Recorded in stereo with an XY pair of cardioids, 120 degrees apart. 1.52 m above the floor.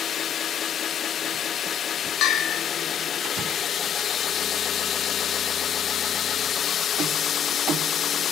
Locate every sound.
2.2 s a bell: 70° left, 1.1 m